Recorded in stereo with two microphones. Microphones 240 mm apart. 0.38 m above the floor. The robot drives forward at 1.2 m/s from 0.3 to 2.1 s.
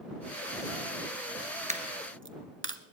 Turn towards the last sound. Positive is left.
turn(degrees=-55)  # may be behind; listen again after turning